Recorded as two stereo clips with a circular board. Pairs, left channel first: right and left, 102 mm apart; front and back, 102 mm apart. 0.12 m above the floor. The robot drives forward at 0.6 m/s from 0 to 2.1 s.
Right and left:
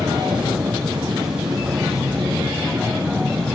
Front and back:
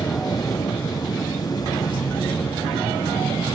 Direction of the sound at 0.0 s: 35° left.